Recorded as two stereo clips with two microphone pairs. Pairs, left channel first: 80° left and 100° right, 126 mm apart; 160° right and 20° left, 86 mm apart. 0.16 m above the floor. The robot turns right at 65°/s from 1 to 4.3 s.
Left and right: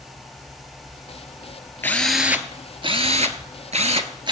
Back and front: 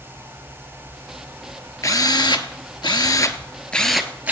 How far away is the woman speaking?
No woman speaking in this recording.